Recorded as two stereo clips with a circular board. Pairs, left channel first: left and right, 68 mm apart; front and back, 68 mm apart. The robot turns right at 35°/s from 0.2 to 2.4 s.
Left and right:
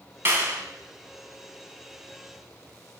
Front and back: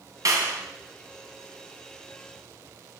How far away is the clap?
About 2.5 m.